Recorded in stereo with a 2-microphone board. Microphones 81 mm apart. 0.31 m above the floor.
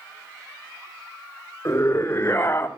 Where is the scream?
40° left (ahead or behind), 2.0 m; by 2.7 s 25° left (ahead or behind), 2 m.